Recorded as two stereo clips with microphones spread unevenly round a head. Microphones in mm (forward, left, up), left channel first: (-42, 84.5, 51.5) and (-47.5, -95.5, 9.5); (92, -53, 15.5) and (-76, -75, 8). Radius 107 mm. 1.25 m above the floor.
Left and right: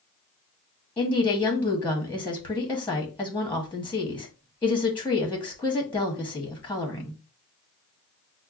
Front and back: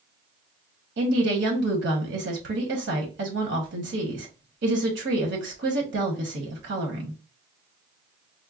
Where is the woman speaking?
175° left, 1.1 m.